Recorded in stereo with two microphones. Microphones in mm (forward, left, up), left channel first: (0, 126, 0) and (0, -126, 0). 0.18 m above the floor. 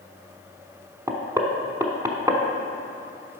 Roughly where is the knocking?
Centre.